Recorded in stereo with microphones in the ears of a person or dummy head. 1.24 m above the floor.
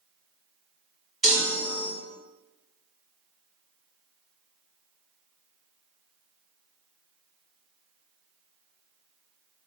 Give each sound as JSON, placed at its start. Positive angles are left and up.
{"t": 1.2, "sound": "a chime", "side_deg": 0, "distance_m": 1.2}